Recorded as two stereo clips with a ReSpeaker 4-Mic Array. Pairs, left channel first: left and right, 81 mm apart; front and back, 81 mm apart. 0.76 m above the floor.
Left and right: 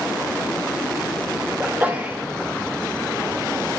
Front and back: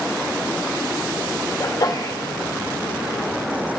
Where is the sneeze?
30° right, 0.8 m.